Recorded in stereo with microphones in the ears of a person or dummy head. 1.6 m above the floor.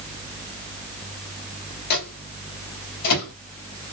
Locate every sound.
1.9 s a microwave: 65° left (ahead or behind), 3 m